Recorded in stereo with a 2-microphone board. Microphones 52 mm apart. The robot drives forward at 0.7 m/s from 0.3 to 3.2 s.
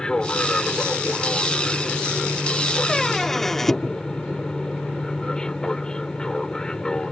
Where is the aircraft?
15° left (ahead or behind).